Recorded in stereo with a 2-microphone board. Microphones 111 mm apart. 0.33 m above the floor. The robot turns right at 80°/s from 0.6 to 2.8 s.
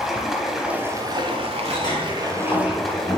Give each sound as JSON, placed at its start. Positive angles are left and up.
{"t": 0.0, "sound": "running water", "azimuth_deg": -175, "distance_m": 1.1}
{"t": 1.6, "sound": "a sliding door", "azimuth_deg": 35, "distance_m": 2.5}